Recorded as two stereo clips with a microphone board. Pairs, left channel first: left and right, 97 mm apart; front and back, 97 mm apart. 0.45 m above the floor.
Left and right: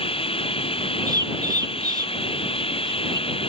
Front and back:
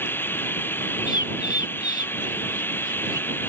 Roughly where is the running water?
Left.